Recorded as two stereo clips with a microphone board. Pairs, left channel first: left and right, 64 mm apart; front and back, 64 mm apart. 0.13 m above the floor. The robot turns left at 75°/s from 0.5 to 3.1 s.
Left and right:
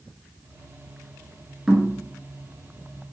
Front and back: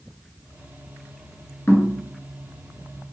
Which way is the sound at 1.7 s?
15° right.